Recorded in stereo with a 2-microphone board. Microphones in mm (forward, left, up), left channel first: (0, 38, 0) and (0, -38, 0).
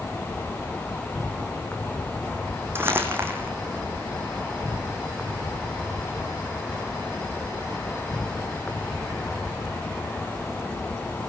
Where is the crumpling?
30° right (ahead or behind), 5.5 m.